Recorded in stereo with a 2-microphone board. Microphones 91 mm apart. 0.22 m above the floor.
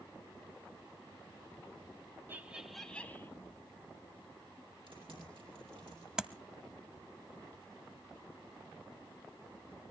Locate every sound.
2.3 s laughter: 25° right (ahead or behind), 1.1 m; by 3.3 s 25° left (ahead or behind), 1.4 m
4.9 s typing on a keyboard: 70° right (ahead or behind), 8 m
6.2 s tapping: 10° right (ahead or behind), 0.7 m